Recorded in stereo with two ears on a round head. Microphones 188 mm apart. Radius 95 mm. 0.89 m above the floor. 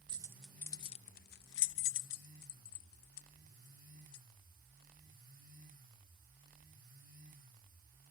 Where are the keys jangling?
20° right (ahead or behind); by 4.2 s 80° left.